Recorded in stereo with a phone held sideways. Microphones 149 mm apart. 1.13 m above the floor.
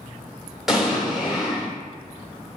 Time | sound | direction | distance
0.7 | an explosion | centre (ahead or behind) | 1.4 m